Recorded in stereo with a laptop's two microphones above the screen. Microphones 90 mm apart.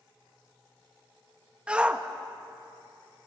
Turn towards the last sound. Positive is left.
turn(degrees=-10)  # may be behind; listen again after turning